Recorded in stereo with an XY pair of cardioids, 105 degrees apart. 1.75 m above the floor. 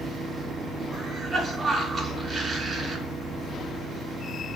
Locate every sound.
0.9 s a cough: 30° right, 4.5 m